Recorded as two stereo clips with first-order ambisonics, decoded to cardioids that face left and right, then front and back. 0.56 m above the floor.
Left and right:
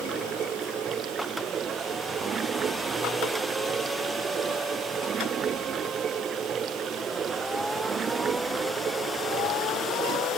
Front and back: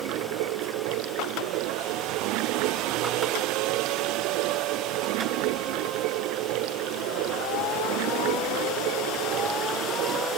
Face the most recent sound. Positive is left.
turn(degrees=-155)